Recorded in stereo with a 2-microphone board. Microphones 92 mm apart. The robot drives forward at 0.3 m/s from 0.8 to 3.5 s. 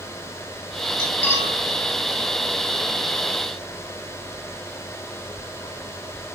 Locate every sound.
1.0 s cutlery clinking: 30° left (ahead or behind), 2.5 m; by 1.6 s 25° left (ahead or behind), 2.5 m